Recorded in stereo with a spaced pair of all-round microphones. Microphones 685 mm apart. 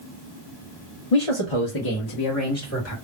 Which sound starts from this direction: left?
A man speaking, at 1.1 s.